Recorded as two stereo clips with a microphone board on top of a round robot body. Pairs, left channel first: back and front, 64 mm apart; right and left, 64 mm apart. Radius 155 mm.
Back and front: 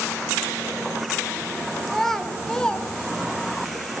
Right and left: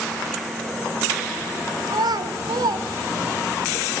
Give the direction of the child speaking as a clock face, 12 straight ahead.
9 o'clock.